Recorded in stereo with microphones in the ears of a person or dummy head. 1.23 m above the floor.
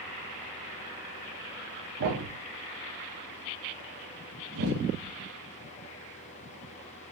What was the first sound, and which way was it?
A thud, 55° right (ahead or behind).